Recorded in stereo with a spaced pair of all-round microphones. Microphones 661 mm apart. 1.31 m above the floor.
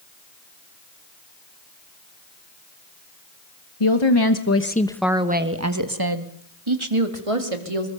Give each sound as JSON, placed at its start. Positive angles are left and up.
{"t": 3.8, "sound": "a woman speaking", "side_deg": 50, "distance_m": 1.4}